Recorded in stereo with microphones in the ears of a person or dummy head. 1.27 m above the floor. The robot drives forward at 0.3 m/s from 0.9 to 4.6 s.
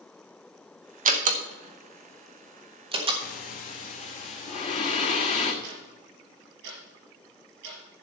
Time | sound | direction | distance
1.1 | a door slam | 35° right (ahead or behind) | 1.0 m
3.2 | breathing | 50° left (ahead or behind) | 1.2 m
5.6 | ticking | 60° right (ahead or behind) | 4.5 m